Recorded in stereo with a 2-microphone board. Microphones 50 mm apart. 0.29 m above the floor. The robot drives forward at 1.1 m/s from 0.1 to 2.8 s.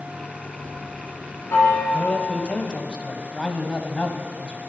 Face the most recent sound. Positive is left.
turn(degrees=20)  # may be behind; listen again after turning